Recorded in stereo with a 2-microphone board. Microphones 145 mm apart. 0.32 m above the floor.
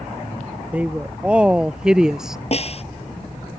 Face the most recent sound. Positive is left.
turn(degrees=45)  # may be behind; listen again after turning